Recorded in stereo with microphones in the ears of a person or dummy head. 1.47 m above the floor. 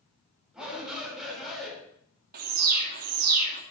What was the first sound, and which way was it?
A shout, centre (ahead or behind).